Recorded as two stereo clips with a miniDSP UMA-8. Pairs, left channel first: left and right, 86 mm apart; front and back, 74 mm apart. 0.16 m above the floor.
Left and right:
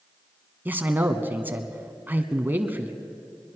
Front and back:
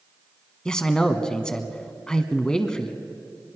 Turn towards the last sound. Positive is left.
turn(degrees=-65)